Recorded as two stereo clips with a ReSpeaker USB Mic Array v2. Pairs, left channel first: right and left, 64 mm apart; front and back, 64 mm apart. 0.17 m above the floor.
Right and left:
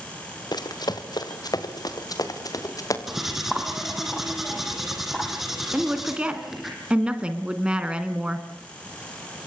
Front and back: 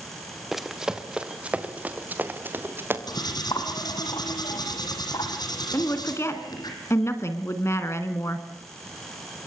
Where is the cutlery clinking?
5° left, 4 m.